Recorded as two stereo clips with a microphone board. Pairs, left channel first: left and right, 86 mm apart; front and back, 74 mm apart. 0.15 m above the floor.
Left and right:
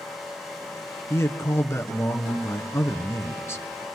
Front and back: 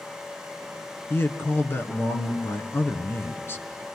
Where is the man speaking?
45° left, 1.6 m.